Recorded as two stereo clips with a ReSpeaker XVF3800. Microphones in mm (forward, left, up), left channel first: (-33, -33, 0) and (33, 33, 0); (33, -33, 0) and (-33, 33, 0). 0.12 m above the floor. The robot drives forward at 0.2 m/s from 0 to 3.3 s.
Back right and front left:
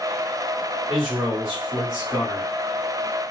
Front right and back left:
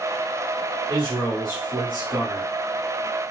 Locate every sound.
0.9 s a man speaking: 130° left, 1.7 m; by 2.5 s 145° left, 1.8 m